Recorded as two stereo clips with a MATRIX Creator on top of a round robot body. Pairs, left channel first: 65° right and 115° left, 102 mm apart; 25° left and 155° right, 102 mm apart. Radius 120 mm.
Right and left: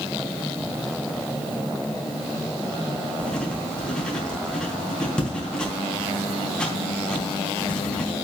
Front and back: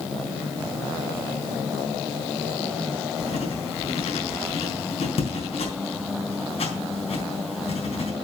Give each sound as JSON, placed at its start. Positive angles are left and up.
{"t": 3.2, "sound": "writing", "azimuth_deg": 15, "distance_m": 4.0}